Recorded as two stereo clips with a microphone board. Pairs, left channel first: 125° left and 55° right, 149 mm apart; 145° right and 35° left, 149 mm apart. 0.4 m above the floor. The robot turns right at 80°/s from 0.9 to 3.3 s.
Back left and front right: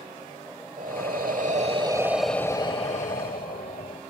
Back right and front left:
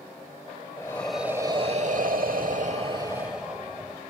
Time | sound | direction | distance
0.8 | breathing | 75° right | 1.0 m